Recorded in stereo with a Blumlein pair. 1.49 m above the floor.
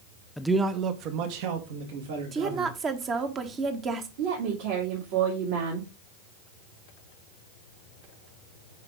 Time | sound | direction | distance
0.4 | a man speaking | 5° left | 0.6 m
2.3 | a woman speaking | 25° right | 1.2 m
4.2 | a woman speaking | 50° right | 2.5 m